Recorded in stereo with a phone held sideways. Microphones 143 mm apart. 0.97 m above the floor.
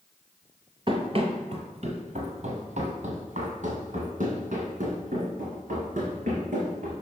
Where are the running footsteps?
40° right (ahead or behind), 1.1 m; by 6.9 s 65° right (ahead or behind), 4 m.